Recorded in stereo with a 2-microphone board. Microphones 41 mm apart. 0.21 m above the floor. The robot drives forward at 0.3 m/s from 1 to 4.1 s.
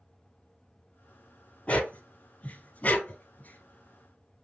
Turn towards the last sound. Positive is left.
turn(degrees=50)  # may be behind; listen again after turning